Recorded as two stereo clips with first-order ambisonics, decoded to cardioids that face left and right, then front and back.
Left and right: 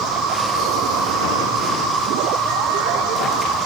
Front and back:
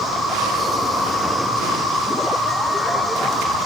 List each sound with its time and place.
0.0 s an insect: 95° right, 3 m